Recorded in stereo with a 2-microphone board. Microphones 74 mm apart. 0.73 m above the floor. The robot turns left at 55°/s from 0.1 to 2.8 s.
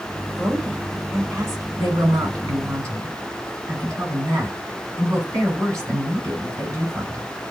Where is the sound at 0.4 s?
5° right, 2.5 m; by 1.7 s 80° right, 2.5 m.